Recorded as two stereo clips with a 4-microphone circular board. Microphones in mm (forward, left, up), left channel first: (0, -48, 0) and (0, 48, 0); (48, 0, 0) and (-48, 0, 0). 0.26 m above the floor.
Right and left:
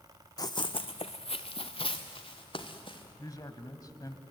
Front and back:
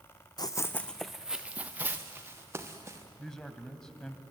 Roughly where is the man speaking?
Right.